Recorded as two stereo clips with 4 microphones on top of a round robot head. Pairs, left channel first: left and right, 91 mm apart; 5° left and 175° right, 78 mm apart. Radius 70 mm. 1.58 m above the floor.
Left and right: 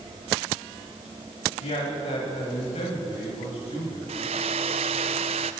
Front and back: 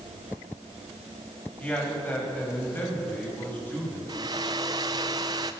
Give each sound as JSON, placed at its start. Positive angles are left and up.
{"t": 1.6, "sound": "a man speaking", "azimuth_deg": 75, "distance_m": 9.0}
{"t": 4.1, "sound": "a hair dryer", "azimuth_deg": -120, "distance_m": 0.6}